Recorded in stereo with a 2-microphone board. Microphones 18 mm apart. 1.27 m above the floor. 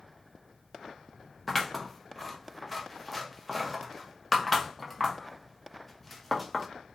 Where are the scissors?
Centre (ahead or behind), 0.6 m.